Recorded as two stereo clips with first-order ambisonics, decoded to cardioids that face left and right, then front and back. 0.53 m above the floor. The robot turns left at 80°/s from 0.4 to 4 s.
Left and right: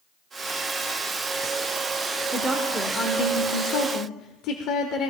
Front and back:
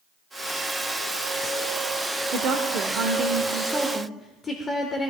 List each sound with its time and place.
2.3 s a woman speaking: 155° right, 1.2 m; by 5.1 s 70° left, 1.2 m